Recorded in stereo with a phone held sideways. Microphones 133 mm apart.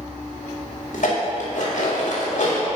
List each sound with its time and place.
0.9 s dishes clattering: 65° left (ahead or behind), 2 m